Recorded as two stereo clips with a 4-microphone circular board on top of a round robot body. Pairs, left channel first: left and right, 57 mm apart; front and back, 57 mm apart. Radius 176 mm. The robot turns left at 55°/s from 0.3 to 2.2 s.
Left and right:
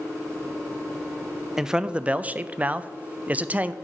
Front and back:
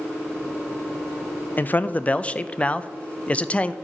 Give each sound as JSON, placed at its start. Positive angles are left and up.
{"t": 1.6, "sound": "a man speaking", "azimuth_deg": -15, "distance_m": 0.5}